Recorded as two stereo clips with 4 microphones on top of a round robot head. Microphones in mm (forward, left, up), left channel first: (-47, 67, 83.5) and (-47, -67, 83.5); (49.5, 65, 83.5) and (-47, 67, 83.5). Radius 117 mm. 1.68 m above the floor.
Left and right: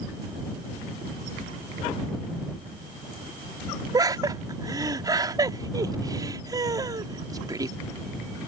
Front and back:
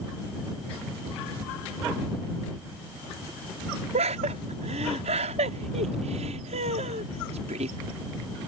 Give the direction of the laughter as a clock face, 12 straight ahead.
5 o'clock.